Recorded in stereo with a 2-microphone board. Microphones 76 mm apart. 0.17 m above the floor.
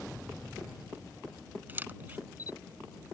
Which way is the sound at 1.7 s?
25° right (ahead or behind).